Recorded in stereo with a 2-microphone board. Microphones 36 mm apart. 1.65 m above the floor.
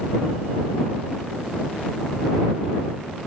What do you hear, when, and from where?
Only background noise.